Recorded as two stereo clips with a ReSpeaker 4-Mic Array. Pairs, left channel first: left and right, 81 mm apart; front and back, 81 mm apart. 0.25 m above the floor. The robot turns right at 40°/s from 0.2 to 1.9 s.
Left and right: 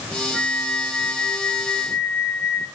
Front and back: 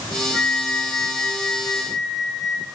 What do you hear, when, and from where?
0.3 s a flute: 135° left, 3.5 m; by 2.6 s 160° right, 3.5 m